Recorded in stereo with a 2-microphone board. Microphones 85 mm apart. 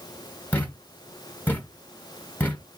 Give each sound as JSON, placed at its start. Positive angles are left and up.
{"t": 0.5, "sound": "a thud", "side_deg": 20, "distance_m": 0.9}